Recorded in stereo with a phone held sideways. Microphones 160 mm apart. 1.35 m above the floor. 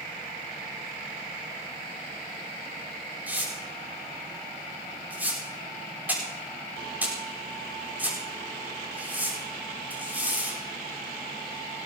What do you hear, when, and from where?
3.3 s tearing paper: 10° right (ahead or behind), 5 m